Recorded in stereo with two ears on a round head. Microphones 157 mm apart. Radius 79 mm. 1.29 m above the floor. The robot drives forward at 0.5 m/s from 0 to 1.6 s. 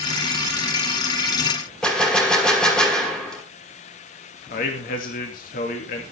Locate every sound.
1.8 s a gunshot: 5° left (ahead or behind), 2 m
4.5 s a man speaking: 50° left (ahead or behind), 2.5 m